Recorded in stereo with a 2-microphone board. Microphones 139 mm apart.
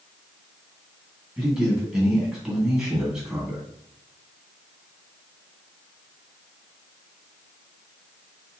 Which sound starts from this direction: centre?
A man speaking, at 1.4 s.